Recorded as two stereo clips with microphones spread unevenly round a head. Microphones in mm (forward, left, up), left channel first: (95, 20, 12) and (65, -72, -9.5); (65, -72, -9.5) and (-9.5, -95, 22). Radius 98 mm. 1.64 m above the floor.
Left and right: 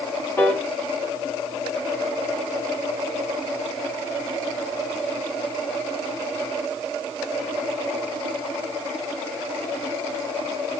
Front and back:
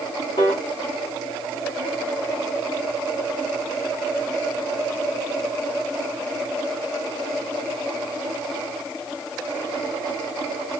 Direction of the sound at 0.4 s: 60° left.